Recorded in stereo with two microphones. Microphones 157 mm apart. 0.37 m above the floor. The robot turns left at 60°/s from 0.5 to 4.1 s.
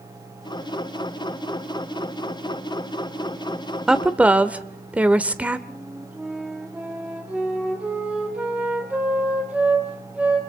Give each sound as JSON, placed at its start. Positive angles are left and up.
{"t": 3.9, "sound": "a woman speaking", "side_deg": -5, "distance_m": 0.8}
{"t": 5.7, "sound": "a flute", "side_deg": -10, "distance_m": 2.5}